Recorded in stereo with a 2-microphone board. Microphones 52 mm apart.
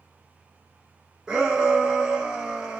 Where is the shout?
15° right (ahead or behind), 0.6 m.